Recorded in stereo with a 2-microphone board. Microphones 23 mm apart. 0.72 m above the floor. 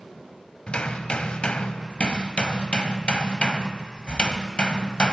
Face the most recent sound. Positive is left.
turn(degrees=55)  # may be behind; listen again after turning